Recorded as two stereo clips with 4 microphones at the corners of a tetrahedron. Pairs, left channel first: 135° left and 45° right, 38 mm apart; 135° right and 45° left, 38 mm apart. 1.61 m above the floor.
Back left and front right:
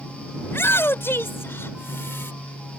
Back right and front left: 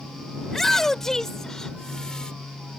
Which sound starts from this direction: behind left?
A shout, at 0.5 s.